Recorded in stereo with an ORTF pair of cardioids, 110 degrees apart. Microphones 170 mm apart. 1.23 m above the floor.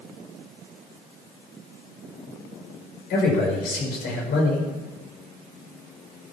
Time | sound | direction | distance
3.1 | a man speaking | 65° left | 5.5 m